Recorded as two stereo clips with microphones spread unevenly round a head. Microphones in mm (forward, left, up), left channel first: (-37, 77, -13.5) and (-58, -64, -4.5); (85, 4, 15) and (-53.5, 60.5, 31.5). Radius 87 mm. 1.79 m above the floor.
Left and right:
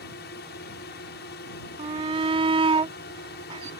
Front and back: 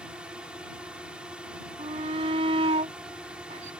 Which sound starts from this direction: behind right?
A shout, at 1.8 s.